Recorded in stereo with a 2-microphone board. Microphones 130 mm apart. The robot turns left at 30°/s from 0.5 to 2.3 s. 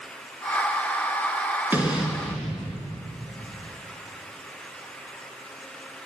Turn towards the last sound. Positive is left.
turn(degrees=0)  # may be behind; listen again after turning